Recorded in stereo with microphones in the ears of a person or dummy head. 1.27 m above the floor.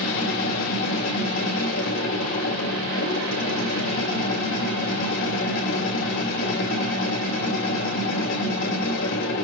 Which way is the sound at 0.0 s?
60° left (ahead or behind).